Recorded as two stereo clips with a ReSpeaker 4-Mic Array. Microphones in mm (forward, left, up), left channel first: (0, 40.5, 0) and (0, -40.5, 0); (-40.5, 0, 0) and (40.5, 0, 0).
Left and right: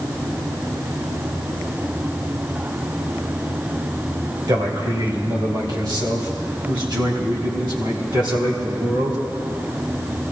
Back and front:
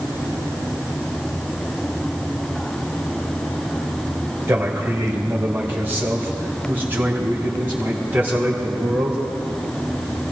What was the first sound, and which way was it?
A man speaking, 55° right.